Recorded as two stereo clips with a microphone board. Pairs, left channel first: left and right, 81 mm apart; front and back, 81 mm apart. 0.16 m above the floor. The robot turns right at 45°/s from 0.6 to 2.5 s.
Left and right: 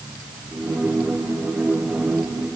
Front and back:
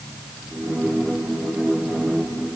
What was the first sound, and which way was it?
Only background noise.